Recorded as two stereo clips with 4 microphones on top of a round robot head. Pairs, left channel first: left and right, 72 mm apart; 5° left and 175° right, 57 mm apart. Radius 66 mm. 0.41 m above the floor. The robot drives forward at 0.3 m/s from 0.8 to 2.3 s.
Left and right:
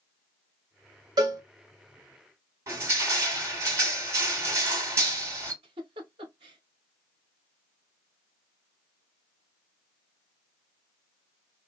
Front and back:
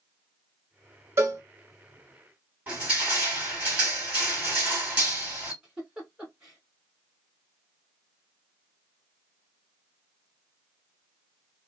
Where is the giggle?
95° right, 0.7 m.